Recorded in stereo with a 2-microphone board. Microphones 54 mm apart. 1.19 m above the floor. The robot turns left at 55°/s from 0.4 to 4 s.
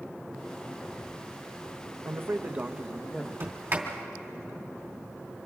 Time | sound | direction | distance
2.0 | a man speaking | 125° right | 0.9 m
3.4 | a sliding door | 55° right (ahead or behind) | 3 m